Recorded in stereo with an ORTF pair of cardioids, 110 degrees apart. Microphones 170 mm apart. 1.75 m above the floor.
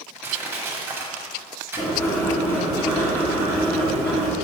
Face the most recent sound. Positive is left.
turn(degrees=15)